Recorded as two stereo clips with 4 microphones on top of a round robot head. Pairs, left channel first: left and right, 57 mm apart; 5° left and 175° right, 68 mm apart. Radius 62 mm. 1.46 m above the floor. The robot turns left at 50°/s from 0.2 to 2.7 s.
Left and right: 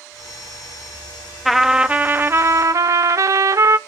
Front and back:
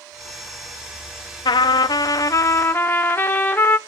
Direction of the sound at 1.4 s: Straight ahead.